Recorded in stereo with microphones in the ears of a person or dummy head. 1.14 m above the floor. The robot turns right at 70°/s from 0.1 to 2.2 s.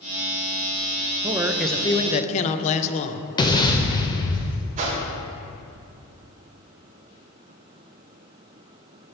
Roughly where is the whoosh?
Right.